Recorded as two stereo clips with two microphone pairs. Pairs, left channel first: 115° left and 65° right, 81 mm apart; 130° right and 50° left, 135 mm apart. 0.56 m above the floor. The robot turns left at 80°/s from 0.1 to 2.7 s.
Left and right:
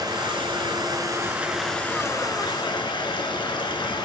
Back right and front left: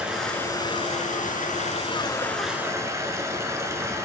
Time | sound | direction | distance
0.0 | running water | 30° right | 1.2 m